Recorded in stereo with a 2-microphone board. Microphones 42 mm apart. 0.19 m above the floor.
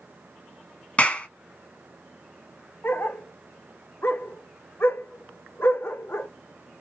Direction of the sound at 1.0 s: 35° left (ahead or behind).